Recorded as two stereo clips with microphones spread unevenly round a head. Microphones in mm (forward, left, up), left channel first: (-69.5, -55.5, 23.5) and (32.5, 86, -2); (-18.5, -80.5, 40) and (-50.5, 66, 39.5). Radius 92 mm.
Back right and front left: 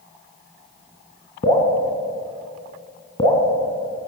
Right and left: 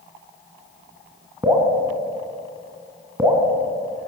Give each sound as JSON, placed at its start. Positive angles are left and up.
{"t": 1.4, "sound": "dripping", "azimuth_deg": 175, "distance_m": 3.5}